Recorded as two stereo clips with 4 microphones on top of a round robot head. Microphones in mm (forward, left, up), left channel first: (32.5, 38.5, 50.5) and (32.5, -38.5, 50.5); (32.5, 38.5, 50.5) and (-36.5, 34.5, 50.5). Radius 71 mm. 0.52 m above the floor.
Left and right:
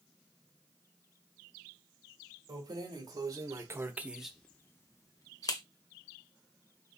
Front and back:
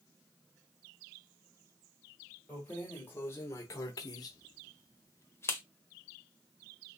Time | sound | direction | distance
2.5 | keys jangling | 70° right | 1.9 m